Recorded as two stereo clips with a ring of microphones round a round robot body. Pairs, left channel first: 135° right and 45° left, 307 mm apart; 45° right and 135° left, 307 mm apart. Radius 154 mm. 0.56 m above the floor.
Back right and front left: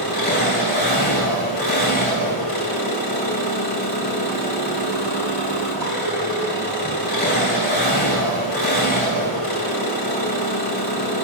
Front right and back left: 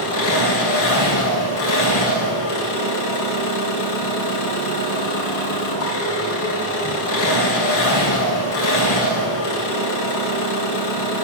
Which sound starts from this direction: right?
An engine running, at 0.0 s.